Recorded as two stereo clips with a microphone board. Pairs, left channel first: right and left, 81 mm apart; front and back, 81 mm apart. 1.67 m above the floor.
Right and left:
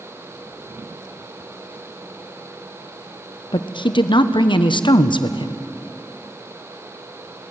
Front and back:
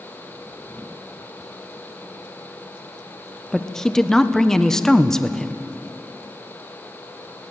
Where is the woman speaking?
85° right, 1.0 m.